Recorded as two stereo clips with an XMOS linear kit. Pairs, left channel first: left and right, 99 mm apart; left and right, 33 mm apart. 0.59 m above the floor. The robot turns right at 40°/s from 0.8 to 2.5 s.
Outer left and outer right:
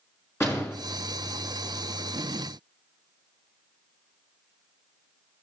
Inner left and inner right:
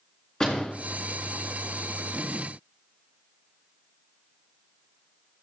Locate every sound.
0.4 s a door slam: 25° left (ahead or behind), 5 m